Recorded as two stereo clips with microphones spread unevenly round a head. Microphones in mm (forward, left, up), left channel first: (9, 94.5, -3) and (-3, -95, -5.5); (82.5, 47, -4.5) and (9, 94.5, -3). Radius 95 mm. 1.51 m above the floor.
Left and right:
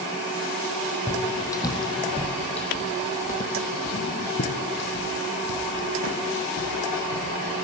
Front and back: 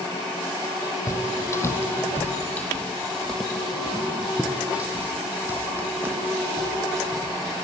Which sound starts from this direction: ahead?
Footsteps, at 1.1 s.